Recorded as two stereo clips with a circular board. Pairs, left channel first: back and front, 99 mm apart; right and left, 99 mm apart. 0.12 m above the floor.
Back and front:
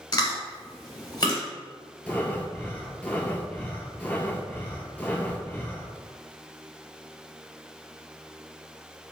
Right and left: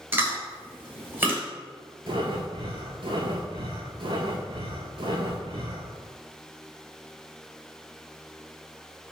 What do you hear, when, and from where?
0.1 s chewing: 150° left, 1.1 m
2.1 s breathing: 105° left, 0.5 m